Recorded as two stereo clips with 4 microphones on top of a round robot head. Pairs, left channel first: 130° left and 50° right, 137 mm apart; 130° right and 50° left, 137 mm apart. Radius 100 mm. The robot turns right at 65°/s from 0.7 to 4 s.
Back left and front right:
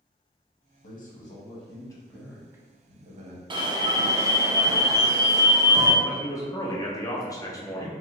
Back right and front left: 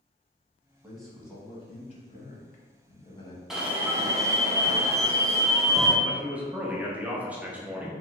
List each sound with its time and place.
0.8 s a man speaking: 130° left, 1.0 m; by 3.4 s 65° right, 1.0 m
3.5 s an alarm: 35° right, 0.7 m; by 5.9 s 5° right, 0.7 m
6.0 s a man speaking: 115° left, 0.6 m